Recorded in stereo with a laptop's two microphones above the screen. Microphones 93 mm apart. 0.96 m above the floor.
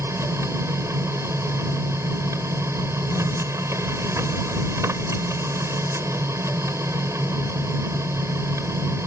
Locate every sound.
0.0 s a machine running: 30° right (ahead or behind)